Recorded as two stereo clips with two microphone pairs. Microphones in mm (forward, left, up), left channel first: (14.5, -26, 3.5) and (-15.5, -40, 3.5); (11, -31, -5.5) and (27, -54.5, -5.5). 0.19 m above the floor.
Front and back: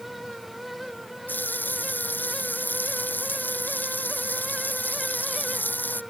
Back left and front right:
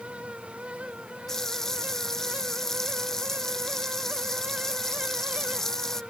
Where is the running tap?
50° left.